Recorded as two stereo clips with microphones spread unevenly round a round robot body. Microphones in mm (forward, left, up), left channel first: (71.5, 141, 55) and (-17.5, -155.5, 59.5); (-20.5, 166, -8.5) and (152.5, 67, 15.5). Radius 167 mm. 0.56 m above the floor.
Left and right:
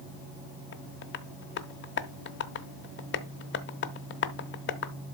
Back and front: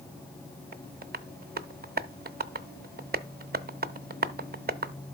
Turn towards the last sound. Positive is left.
turn(degrees=15)